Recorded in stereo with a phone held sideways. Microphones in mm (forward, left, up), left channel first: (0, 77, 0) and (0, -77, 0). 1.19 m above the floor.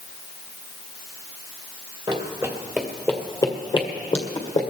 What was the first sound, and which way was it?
Running footsteps, 35° right (ahead or behind).